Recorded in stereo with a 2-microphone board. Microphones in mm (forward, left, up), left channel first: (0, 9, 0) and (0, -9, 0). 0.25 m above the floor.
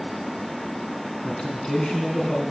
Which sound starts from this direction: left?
A man speaking, at 1.2 s.